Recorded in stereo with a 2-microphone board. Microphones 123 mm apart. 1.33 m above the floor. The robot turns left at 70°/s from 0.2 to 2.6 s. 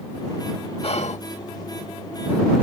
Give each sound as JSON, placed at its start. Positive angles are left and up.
{"t": 0.8, "sound": "whispering", "side_deg": 55}